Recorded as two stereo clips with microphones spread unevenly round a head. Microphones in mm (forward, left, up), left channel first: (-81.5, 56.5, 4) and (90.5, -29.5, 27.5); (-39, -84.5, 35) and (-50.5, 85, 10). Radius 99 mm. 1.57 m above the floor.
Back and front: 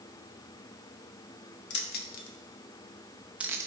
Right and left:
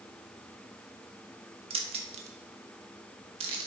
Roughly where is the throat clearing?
No throat clearing in this recording.